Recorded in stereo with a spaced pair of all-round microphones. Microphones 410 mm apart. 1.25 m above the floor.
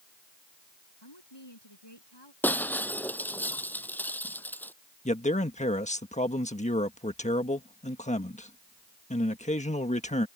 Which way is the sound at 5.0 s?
15° left (ahead or behind).